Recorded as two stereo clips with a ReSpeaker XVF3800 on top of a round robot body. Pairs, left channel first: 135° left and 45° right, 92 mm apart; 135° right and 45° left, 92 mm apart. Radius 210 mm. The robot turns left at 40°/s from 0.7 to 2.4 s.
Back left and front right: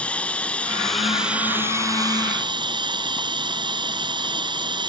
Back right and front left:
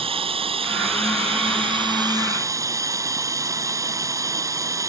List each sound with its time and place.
0.0 s running water: 60° left; by 4.9 s 10° right